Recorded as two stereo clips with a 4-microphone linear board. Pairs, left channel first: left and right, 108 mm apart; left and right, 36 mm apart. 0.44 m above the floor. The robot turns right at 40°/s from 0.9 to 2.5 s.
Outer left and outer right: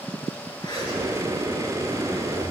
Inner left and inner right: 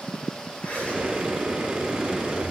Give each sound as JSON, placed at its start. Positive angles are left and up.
{"t": 0.6, "sound": "a zipper", "azimuth_deg": 40, "distance_m": 4.0}